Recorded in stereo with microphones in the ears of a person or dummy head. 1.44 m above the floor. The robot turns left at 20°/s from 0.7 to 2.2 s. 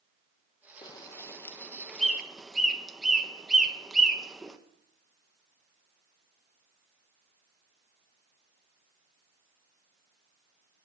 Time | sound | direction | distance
0.8 | a bird | 25° left (ahead or behind) | 1.1 m